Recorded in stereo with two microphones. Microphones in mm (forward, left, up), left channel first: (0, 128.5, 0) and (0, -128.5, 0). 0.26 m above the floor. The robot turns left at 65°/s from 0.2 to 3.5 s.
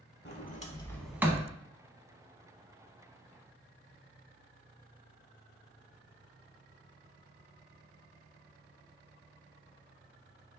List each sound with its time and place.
0.2 s a sliding door: 50° left (ahead or behind), 0.6 m; by 1.5 s 25° right (ahead or behind), 0.6 m